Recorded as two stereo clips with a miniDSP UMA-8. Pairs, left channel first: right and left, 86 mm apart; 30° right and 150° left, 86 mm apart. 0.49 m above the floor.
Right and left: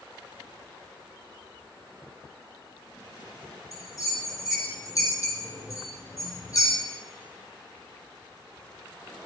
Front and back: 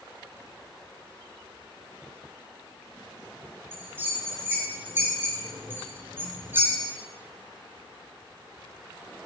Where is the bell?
140° right, 4 m.